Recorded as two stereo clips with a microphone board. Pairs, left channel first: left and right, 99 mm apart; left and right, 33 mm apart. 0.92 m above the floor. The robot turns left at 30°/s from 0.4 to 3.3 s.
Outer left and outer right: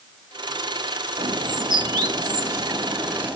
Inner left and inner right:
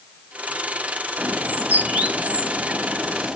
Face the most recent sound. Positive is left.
turn(degrees=-20)  # may be behind; listen again after turning